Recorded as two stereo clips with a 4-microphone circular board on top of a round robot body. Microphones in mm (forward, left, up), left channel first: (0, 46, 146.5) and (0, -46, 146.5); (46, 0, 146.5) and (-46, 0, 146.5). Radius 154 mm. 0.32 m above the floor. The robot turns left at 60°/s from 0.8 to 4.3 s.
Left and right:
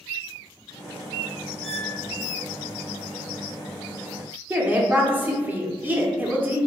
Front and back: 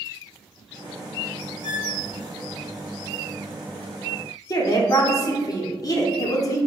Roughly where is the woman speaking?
Ahead right.